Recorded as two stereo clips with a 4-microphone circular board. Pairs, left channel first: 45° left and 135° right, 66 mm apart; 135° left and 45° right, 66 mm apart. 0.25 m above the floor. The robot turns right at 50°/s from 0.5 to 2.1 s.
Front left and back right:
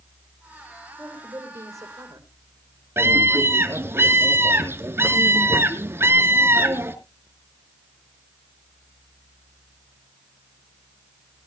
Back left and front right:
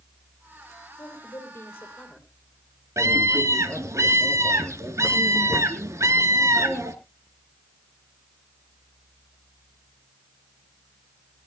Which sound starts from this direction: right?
A scream, at 3.0 s.